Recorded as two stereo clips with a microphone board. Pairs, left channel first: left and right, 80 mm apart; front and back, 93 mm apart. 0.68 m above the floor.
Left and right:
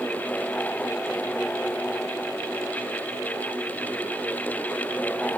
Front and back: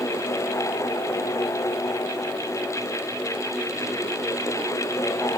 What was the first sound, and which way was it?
Only background noise.